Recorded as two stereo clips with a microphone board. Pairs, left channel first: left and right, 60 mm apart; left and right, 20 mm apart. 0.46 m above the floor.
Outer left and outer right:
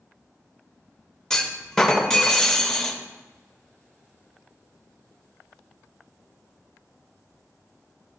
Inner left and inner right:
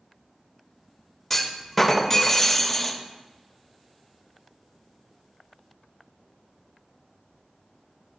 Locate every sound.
1.3 s a clunk: 10° left (ahead or behind), 0.8 m